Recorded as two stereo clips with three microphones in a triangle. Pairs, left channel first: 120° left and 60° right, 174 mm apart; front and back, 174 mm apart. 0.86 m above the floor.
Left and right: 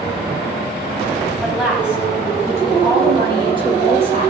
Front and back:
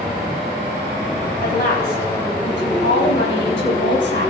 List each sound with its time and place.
1.4 s a woman speaking: 30° left, 5.5 m; by 4.3 s 5° right, 6 m